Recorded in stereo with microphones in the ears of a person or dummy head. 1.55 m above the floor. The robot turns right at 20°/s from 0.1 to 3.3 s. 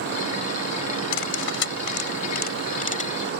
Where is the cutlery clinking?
80° left; by 3.3 s 35° left (ahead or behind).